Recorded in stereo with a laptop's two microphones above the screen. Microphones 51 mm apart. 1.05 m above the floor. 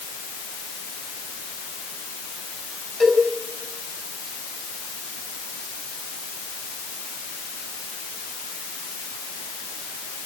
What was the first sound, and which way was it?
A cowbell, 5° left (ahead or behind).